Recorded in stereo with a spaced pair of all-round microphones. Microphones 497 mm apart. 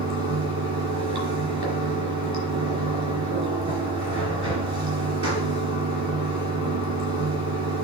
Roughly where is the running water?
Right.